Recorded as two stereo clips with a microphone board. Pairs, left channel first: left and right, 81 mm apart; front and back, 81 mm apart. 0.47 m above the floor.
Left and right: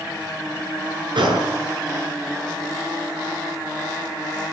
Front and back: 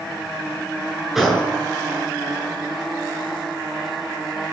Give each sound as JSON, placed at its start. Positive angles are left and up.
{"t": 1.1, "sound": "a gunshot", "azimuth_deg": -95, "distance_m": 7.5}